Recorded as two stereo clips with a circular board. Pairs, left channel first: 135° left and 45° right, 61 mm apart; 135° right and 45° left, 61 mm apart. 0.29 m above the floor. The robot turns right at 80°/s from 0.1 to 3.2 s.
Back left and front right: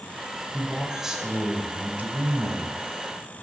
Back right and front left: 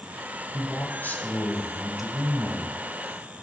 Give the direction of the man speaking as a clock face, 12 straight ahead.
5 o'clock.